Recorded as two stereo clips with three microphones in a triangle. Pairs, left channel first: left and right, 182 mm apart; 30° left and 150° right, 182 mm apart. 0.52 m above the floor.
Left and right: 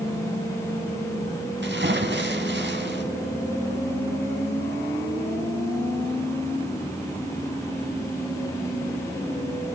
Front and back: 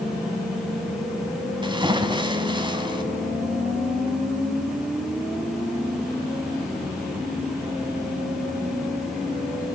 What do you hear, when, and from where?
1.6 s a splash: 85° right, 1.5 m